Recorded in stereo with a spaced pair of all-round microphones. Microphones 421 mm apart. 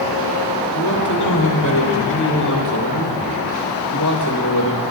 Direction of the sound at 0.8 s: 40° left (ahead or behind).